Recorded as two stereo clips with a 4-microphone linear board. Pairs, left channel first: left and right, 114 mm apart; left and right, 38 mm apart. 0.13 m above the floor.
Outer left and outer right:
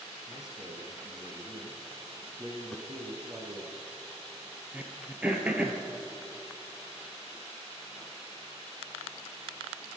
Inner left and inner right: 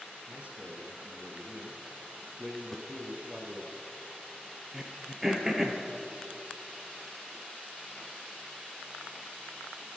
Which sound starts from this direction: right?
A man speaking, at 0.3 s.